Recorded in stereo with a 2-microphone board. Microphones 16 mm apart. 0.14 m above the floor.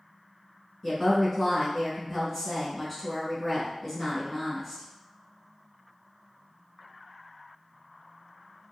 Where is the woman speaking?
5° left (ahead or behind), 1.2 m.